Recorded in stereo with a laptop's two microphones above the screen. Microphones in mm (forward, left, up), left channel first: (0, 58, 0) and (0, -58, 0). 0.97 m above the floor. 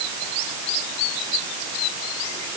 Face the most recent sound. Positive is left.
No sound to turn to.